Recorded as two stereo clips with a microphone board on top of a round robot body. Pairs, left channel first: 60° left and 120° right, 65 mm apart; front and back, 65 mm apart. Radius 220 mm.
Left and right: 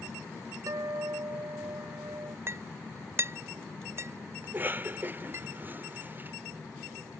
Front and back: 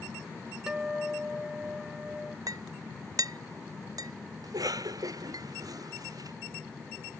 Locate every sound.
0.7 s a guitar: 100° right
2.5 s a clink: 170° right
4.4 s a cough: straight behind